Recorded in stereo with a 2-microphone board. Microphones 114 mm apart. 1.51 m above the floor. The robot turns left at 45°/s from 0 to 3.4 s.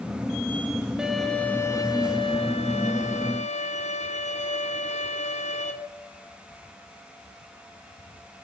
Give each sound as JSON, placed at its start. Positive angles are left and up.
{"t": 1.0, "sound": "a violin", "azimuth_deg": -175, "distance_m": 1.0}